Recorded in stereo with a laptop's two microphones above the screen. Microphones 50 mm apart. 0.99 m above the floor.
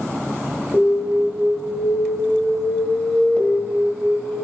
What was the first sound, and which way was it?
An alarm, 35° left (ahead or behind).